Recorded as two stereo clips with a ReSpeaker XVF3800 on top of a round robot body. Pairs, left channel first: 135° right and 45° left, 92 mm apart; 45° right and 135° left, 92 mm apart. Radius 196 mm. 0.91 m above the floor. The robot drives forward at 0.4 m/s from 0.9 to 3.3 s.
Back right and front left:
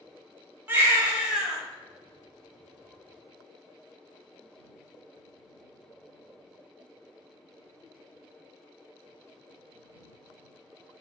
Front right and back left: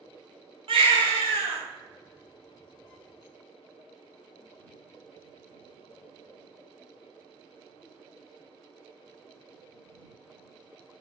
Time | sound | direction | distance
0.7 | a baby crying | 115° left | 0.7 m